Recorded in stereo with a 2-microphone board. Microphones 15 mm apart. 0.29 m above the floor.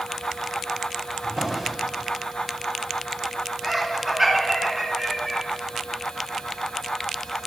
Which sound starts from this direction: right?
A drawer, at 1.2 s.